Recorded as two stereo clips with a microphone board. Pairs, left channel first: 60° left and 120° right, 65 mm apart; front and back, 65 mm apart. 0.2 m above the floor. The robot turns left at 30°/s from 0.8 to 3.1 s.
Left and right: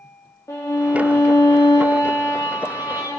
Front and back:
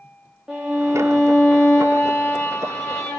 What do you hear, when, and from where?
0.5 s a violin: 105° left, 2.5 m; by 3.2 s 35° left, 2.5 m